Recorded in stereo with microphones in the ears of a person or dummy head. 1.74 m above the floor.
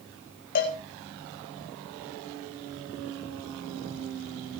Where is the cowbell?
45° left (ahead or behind), 3.5 m.